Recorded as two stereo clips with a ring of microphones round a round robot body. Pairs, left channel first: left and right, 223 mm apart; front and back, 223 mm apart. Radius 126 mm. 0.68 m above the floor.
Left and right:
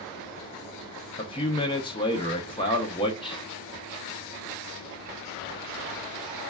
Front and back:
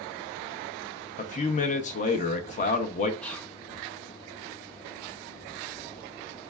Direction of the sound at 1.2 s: 35° left.